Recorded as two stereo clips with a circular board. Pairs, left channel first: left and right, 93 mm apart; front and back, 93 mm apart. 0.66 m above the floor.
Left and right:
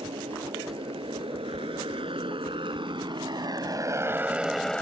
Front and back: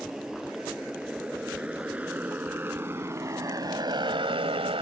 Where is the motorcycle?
95° right; by 4.8 s 170° left.